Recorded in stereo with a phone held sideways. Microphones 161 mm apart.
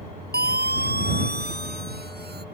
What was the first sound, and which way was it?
A siren, 80° right.